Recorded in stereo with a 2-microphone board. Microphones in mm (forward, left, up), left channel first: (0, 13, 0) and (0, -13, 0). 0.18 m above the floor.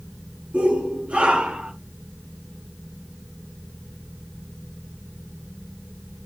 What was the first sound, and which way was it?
A shout, 60° right (ahead or behind).